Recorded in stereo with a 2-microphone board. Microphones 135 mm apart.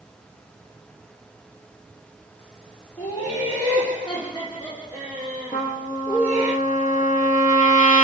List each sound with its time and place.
3.0 s laughter: 35° left (ahead or behind), 5.5 m
5.5 s a trumpet: 80° left, 1.4 m